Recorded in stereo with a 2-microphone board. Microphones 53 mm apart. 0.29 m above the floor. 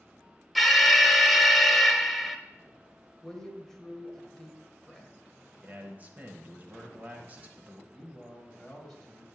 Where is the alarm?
Centre (ahead or behind), 0.6 m.